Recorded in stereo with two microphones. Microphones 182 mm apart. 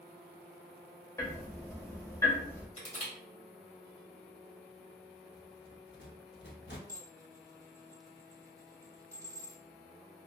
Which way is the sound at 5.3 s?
75° left (ahead or behind).